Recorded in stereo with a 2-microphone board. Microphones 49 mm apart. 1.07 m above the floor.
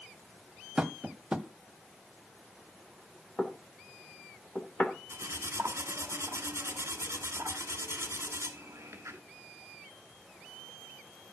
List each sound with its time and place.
0.8 s tapping: 20° right (ahead or behind), 0.9 m
3.4 s knocking: 25° left (ahead or behind), 2.5 m
5.1 s cutlery clinking: 70° right (ahead or behind), 1.8 m